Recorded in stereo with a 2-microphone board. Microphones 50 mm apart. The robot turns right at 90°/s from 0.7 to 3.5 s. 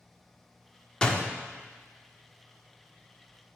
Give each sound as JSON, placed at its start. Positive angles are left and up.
{"t": 1.0, "sound": "a door slam", "side_deg": 15, "distance_m": 0.9}